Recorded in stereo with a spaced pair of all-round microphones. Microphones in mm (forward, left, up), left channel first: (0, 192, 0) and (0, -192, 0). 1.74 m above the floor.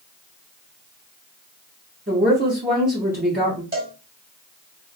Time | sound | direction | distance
2.1 | a woman speaking | 25° right (ahead or behind) | 1.7 m
3.7 | a cowbell | 25° right (ahead or behind) | 2.5 m